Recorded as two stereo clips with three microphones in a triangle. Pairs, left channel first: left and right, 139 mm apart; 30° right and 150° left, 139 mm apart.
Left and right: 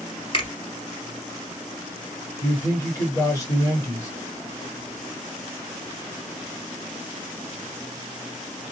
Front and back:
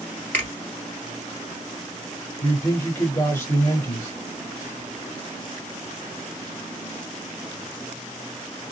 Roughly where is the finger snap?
Ahead left.